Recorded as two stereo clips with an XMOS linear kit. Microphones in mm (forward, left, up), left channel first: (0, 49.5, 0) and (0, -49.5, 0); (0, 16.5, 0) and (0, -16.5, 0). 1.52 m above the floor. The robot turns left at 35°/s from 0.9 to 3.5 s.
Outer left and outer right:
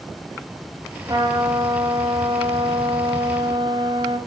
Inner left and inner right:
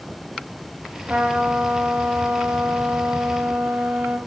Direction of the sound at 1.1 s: 45° right.